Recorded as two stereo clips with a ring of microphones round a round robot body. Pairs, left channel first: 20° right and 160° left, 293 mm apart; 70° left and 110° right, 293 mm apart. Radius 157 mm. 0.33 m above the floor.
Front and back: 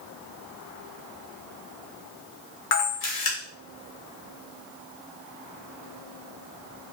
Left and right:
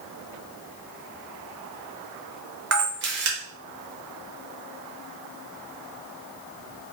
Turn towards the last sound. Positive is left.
turn(degrees=-65)